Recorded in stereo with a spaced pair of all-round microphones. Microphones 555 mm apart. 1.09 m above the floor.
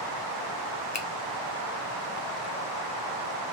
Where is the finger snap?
30° left (ahead or behind), 0.6 m.